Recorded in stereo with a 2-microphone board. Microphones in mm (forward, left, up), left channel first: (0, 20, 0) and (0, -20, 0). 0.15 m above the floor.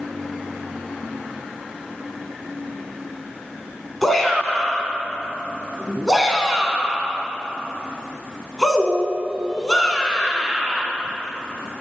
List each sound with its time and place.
4.0 s a shout: 5° left (ahead or behind), 1.1 m